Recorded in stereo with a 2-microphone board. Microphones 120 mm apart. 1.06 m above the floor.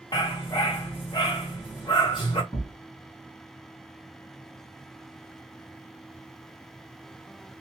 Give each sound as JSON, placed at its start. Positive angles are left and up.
{"t": 0.1, "sound": "a dog barking", "side_deg": 40, "distance_m": 1.9}
{"t": 2.5, "sound": "a thud", "side_deg": 25, "distance_m": 3.5}